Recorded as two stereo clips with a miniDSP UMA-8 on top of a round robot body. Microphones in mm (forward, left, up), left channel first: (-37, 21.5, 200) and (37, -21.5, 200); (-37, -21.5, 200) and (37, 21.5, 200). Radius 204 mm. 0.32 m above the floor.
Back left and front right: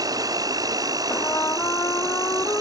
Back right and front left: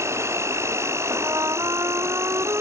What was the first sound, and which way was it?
An insect, 15° right.